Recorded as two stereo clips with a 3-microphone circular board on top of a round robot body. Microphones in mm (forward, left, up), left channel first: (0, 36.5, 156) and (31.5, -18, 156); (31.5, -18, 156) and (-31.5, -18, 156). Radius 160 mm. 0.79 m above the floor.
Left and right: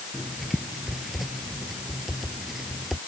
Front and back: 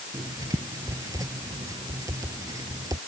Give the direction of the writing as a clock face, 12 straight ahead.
5 o'clock.